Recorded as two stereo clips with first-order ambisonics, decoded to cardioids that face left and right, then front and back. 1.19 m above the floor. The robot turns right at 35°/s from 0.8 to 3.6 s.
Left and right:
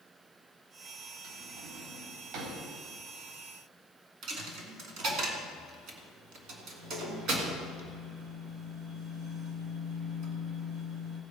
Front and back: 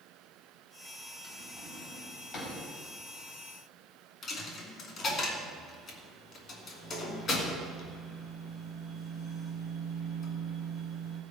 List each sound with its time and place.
1.2 s a drawer: 115° right, 4 m; by 2.6 s 65° right, 4 m
4.2 s a dropped coin: 55° right, 1.8 m